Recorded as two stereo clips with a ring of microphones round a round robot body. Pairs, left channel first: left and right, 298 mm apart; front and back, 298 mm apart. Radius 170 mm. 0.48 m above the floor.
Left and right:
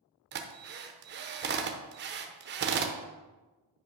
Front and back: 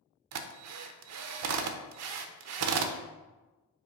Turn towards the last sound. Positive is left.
turn(degrees=-145)